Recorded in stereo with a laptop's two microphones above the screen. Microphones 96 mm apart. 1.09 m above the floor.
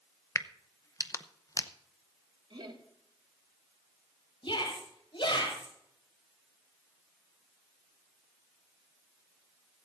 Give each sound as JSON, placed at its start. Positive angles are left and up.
{"t": 0.3, "sound": "a crack", "side_deg": 35, "distance_m": 0.7}
{"t": 2.5, "sound": "laughter", "side_deg": -60, "distance_m": 3.0}
{"t": 4.4, "sound": "a shout", "side_deg": 65, "distance_m": 5.5}